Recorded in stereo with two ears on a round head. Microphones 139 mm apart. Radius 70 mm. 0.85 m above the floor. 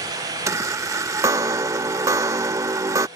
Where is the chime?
20° right (ahead or behind).